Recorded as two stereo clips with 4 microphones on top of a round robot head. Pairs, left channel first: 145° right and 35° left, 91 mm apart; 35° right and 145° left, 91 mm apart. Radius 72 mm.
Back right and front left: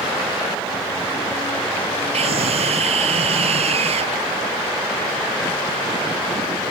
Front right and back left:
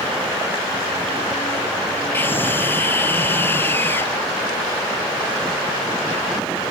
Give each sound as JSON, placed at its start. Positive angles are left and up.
{"t": 2.1, "sound": "a scream", "azimuth_deg": 30}